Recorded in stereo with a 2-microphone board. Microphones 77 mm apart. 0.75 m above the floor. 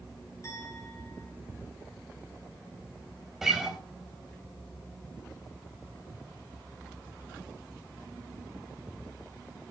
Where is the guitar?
5° right (ahead or behind), 3.5 m.